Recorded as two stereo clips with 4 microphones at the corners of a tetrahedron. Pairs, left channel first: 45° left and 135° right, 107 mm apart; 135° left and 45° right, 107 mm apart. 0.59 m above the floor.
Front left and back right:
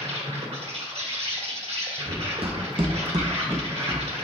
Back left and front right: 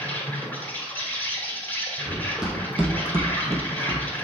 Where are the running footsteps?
130° right, 1.4 m; by 4.2 s 20° right, 0.7 m.